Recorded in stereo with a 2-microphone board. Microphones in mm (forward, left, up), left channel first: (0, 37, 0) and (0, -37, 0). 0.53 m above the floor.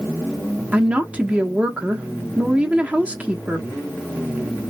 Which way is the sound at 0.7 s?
20° right (ahead or behind).